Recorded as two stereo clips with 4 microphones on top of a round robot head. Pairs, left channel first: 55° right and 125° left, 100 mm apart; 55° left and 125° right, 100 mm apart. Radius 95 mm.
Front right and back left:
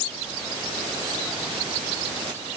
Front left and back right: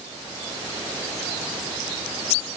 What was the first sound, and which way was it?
Only background noise.